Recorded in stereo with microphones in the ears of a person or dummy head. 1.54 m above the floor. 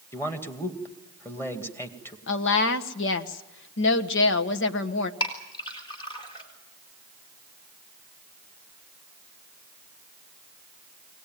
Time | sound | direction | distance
0.1 | a man speaking | 15° left (ahead or behind) | 2 m
2.3 | a woman speaking | 75° left (ahead or behind) | 1.3 m
5.2 | a clink | 30° left (ahead or behind) | 4 m